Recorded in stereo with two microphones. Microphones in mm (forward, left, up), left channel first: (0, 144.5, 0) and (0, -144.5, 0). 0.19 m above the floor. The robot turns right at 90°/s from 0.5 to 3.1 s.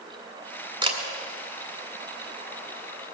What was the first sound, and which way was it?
A camera shutter, 15° right (ahead or behind).